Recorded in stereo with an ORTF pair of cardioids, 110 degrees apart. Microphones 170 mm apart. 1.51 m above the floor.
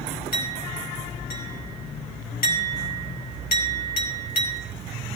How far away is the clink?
About 4.5 m.